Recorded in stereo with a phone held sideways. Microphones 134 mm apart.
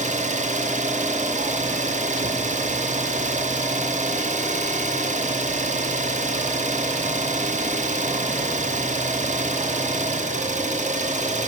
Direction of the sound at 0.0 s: 60° right (ahead or behind).